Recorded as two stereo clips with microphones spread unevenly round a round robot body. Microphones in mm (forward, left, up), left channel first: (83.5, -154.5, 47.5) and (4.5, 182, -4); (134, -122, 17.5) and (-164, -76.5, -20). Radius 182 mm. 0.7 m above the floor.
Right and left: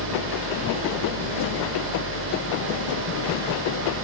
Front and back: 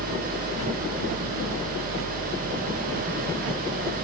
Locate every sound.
0.0 s an engine running: 90° left, 7 m